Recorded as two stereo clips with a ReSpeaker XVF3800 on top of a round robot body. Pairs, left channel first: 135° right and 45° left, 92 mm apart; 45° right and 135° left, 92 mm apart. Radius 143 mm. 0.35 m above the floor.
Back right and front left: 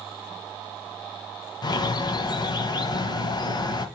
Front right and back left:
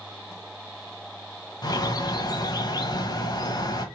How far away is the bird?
About 1.1 m.